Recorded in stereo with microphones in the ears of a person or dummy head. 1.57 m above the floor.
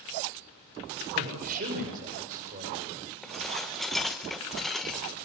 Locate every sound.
1.1 s a man speaking: 45° right (ahead or behind), 7.5 m
3.2 s dishes clattering: 5° left (ahead or behind), 0.8 m